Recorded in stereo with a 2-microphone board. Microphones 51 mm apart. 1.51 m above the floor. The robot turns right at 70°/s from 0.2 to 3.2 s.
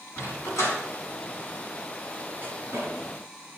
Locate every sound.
0.2 s a dog barking: 60° left (ahead or behind), 6 m; by 2.9 s 65° right (ahead or behind), 6 m